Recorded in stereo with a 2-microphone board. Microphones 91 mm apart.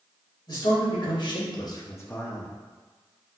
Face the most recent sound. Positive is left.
turn(degrees=5)  # may be behind; listen again after turning